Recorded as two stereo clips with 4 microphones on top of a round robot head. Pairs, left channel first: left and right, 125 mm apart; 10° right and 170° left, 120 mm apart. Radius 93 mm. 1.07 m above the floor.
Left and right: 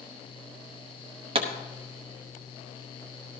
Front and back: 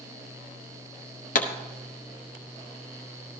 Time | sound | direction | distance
1.4 | a pop | 35° right | 0.9 m